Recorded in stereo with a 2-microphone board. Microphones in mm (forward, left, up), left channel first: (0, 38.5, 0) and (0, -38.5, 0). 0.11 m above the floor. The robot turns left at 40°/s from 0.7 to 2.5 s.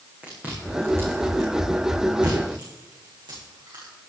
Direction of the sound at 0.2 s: 20° right (ahead or behind).